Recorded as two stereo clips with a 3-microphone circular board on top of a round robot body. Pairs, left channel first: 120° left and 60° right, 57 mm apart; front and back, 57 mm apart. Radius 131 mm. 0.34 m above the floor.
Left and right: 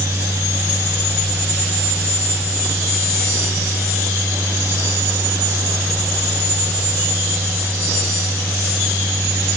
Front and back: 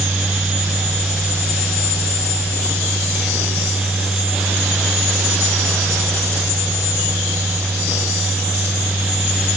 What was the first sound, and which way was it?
Only background noise.